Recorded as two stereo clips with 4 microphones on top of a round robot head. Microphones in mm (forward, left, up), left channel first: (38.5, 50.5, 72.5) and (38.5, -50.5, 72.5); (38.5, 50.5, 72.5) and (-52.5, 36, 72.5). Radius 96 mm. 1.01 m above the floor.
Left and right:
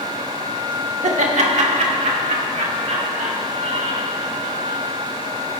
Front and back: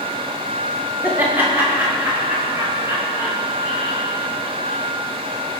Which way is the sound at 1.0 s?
95° right.